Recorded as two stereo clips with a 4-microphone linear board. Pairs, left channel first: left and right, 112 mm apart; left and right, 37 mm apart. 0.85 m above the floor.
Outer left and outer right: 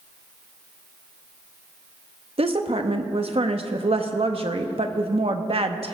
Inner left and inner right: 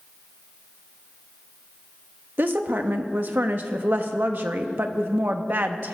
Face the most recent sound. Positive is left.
turn(degrees=-60)  # may be behind; listen again after turning